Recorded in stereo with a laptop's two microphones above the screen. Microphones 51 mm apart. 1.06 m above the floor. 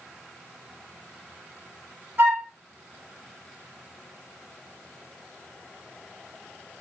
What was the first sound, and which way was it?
A flute, 50° right (ahead or behind).